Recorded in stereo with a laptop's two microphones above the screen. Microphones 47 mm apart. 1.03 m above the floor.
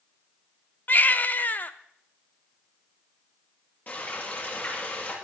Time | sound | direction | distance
0.9 | a baby crying | 40° left (ahead or behind) | 0.7 m
3.9 | frying | 40° left (ahead or behind) | 7 m